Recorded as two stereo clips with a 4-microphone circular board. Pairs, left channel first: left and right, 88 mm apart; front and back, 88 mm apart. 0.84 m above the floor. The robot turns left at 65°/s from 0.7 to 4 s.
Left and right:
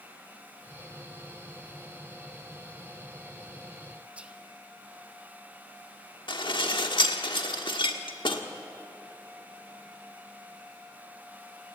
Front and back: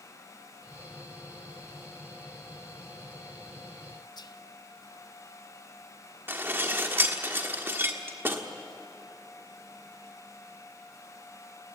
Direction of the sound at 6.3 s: 115° left.